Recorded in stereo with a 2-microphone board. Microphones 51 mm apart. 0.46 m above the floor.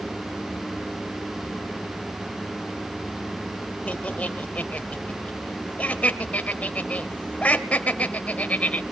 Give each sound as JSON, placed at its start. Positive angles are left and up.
{"t": 3.9, "sound": "laughter", "side_deg": 30, "distance_m": 2.5}